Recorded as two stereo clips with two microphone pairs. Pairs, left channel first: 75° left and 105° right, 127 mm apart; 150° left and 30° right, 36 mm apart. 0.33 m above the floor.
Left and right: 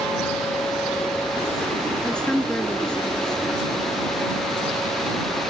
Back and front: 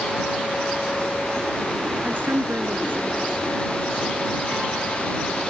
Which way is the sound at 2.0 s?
10° right.